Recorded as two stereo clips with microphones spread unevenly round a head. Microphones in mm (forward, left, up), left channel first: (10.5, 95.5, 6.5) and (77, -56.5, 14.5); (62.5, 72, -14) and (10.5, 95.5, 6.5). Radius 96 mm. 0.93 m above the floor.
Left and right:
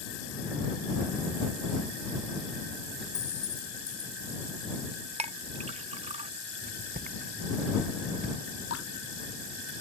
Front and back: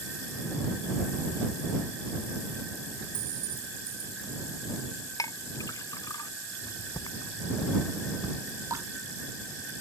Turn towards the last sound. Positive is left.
turn(degrees=135)